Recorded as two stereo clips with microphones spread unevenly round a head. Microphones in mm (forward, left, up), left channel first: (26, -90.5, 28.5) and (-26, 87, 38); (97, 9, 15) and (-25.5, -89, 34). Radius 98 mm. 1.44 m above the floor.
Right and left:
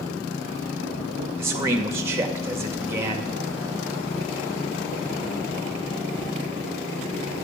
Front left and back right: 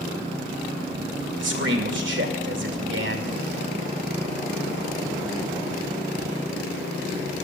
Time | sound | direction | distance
1.4 | a man speaking | 175° right | 2 m